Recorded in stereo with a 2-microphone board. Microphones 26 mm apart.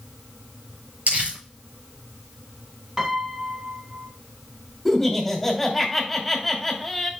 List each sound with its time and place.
1.1 s crumpling: 65° right (ahead or behind), 6 m
3.0 s a piano: 20° right (ahead or behind), 1.5 m
4.8 s laughter: centre (ahead or behind), 3.5 m